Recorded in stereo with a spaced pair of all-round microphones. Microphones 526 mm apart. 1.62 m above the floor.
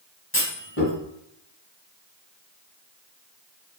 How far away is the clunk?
About 2.5 m.